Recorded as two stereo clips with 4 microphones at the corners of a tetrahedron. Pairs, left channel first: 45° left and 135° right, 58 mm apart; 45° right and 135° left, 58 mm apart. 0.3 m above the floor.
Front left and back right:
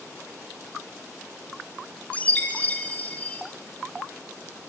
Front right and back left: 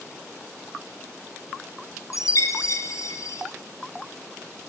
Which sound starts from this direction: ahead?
A chime, at 2.1 s.